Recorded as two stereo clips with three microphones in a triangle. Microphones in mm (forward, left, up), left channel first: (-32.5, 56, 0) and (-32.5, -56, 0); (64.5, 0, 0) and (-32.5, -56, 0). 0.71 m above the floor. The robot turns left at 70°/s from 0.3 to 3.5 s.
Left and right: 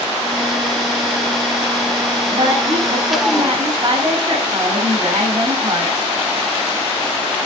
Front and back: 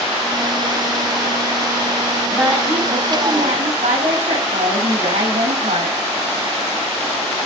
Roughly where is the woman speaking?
Ahead right.